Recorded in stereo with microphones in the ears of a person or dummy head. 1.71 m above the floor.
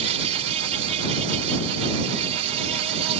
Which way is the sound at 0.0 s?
35° right (ahead or behind).